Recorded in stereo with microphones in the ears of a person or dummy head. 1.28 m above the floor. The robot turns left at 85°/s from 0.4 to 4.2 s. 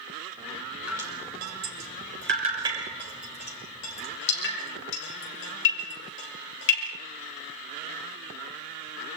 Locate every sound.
0.9 s dripping: 5° right (ahead or behind), 7 m; by 6.9 s 70° left (ahead or behind), 7 m